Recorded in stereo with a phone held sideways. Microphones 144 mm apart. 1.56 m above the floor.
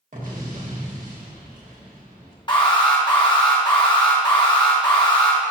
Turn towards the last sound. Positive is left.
turn(degrees=35)  # may be behind; listen again after turning